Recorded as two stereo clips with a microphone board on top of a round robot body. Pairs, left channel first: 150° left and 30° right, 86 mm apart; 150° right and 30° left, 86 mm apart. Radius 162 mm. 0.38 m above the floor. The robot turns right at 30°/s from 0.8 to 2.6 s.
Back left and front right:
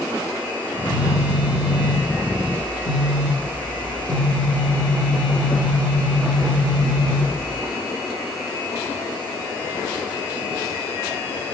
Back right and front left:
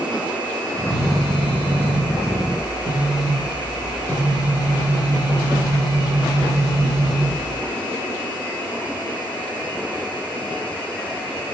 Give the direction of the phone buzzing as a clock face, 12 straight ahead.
8 o'clock.